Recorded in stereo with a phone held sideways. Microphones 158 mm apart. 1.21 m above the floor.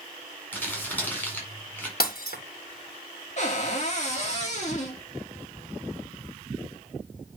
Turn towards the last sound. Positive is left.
turn(degrees=50)  # may be behind; listen again after turning